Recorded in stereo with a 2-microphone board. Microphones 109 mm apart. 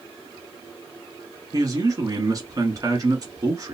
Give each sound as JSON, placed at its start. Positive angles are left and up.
{"t": 1.5, "sound": "a man speaking", "side_deg": -35, "distance_m": 1.3}